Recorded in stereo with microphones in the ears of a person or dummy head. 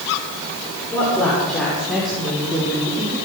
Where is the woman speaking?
5° left (ahead or behind), 6.5 m; by 3.2 s 20° right (ahead or behind), 4.5 m.